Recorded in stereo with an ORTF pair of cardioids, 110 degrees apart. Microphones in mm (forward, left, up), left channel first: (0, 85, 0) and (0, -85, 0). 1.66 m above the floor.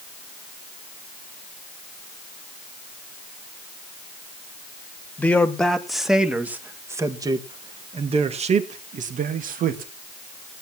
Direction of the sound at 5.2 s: 10° left.